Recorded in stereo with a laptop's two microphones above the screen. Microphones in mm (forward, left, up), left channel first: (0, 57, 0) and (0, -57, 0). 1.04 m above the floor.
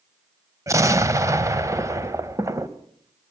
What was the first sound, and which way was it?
An explosion, 25° right (ahead or behind).